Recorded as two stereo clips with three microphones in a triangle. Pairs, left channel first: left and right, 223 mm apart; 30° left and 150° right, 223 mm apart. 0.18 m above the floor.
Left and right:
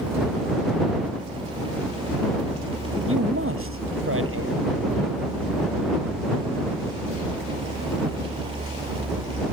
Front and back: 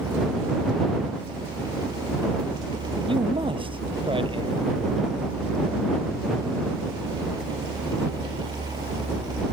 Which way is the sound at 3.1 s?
85° right.